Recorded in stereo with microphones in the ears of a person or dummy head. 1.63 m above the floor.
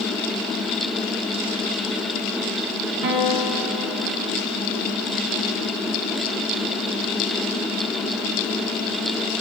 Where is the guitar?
55° right (ahead or behind), 1.1 m.